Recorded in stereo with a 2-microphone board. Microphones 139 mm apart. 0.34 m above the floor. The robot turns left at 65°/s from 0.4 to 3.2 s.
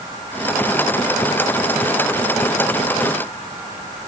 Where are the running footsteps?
I don't hear running footsteps.